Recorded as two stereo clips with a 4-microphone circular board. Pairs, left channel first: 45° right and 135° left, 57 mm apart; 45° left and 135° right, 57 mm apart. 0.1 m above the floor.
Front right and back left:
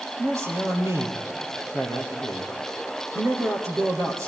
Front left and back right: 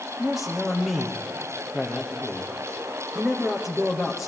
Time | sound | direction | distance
0.2 | a man speaking | 145° left | 3 m